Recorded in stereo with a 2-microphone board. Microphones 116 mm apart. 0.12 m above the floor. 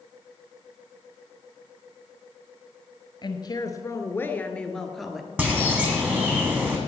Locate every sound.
3.2 s a woman speaking: 40° left (ahead or behind), 1.6 m; by 5.3 s 5° right (ahead or behind), 1.7 m
5.4 s a bird: 15° right (ahead or behind), 3 m